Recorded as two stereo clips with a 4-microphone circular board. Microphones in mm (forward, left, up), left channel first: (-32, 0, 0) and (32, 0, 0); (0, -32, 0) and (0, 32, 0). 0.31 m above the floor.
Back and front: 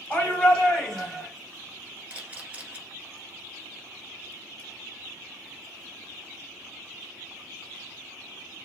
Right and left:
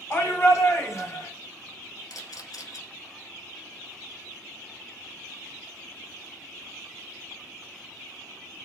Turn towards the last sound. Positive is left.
turn(degrees=-70)